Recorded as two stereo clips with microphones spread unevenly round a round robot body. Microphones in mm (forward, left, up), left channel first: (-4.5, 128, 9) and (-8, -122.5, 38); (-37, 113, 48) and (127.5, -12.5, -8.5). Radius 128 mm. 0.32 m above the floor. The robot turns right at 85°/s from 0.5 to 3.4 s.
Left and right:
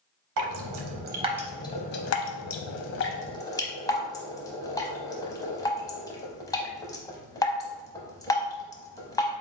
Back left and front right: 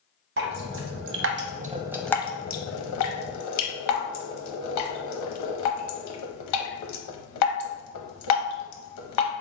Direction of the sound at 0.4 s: 80° right.